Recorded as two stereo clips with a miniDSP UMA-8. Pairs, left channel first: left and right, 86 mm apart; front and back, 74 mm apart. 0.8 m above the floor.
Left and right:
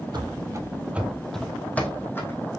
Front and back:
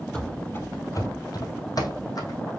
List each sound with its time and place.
0.1 s running footsteps: 75° right, 1.4 m; by 2.4 s 30° left, 2.5 m